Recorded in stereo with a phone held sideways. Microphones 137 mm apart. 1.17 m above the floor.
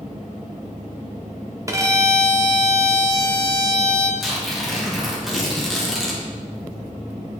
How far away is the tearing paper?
About 2 m.